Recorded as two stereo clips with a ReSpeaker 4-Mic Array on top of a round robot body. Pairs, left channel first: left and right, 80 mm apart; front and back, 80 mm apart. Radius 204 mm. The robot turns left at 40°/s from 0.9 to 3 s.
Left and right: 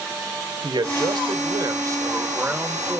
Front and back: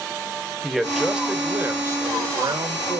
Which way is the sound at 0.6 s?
90° right.